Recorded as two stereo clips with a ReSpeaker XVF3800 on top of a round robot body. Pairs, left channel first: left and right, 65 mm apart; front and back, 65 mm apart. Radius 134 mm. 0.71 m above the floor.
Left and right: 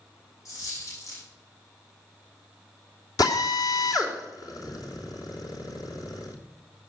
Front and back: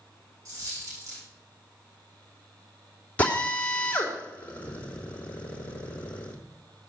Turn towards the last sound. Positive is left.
turn(degrees=70)